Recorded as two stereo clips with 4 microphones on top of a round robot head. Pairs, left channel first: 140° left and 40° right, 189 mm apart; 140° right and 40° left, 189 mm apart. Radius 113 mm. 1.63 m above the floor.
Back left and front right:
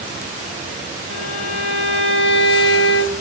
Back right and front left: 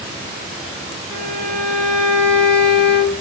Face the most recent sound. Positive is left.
turn(degrees=110)